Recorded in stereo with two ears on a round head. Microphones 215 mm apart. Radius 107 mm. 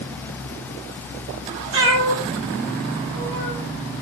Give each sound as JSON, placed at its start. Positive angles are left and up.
{"t": 1.7, "sound": "a cat meowing", "side_deg": -60, "distance_m": 2.5}